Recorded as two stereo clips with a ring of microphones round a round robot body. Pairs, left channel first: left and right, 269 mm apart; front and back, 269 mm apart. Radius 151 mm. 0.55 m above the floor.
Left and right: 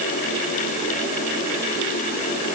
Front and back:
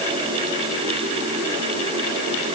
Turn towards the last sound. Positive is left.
No sound to turn to.